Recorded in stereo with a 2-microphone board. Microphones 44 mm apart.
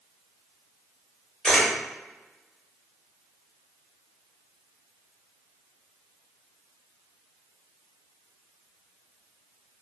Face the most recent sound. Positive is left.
turn(degrees=10)  # may be behind; listen again after turning